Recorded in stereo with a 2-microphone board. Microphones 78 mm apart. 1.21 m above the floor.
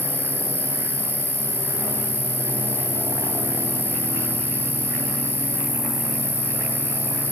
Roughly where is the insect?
Centre.